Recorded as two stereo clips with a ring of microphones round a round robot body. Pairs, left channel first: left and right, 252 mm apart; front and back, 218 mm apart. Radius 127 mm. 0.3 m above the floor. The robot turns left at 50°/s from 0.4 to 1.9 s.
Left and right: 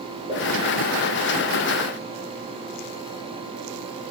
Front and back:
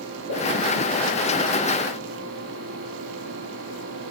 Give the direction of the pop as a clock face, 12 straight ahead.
1 o'clock.